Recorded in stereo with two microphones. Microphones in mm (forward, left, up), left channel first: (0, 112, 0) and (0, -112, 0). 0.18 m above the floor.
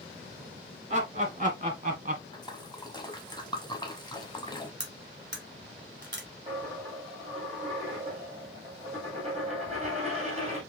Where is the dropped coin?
30° right (ahead or behind), 2.5 m.